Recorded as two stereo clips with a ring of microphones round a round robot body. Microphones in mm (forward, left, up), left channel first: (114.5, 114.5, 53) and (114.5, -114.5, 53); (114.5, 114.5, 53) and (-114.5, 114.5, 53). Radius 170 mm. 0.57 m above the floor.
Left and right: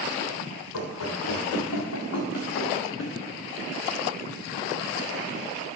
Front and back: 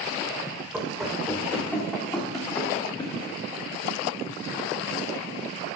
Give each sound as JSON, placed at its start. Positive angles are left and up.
{"t": 0.7, "sound": "running footsteps", "azimuth_deg": 95, "distance_m": 3.0}